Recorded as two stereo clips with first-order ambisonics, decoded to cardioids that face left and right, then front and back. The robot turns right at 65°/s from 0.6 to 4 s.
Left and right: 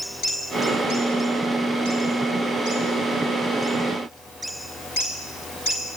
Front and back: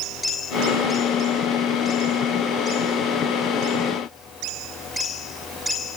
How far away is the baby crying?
I don't hear a baby crying.